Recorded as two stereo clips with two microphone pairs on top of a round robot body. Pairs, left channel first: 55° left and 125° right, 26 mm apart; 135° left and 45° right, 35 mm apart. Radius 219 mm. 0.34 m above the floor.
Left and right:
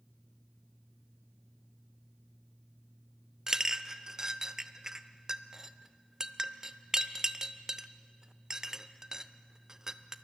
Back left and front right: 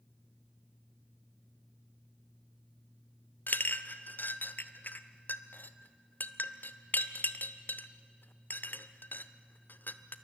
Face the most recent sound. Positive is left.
turn(degrees=165)